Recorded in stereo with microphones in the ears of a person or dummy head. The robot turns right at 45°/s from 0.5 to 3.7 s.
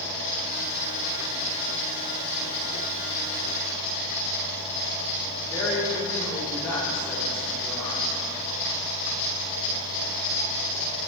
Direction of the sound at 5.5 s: 15° left (ahead or behind).